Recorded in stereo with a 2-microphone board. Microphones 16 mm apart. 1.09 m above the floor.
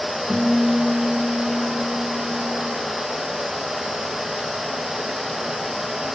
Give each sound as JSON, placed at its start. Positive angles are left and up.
{"t": 0.3, "sound": "a guitar", "side_deg": 70, "distance_m": 4.5}